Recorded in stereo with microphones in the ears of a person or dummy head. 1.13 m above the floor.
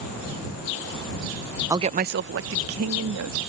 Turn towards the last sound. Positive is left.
turn(degrees=-75)  # may be behind; listen again after turning